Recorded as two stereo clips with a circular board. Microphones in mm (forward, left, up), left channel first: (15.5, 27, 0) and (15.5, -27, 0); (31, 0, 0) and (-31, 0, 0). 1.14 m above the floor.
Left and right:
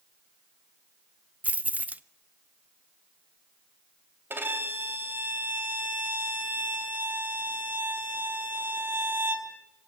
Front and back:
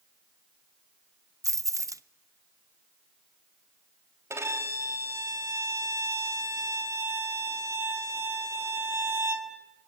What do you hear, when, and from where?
1.4 s keys jangling: 150° right, 0.5 m
4.3 s a violin: 135° right, 2.5 m